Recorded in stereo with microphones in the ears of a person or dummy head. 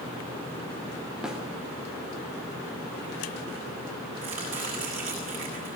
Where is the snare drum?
5° right (ahead or behind), 4 m.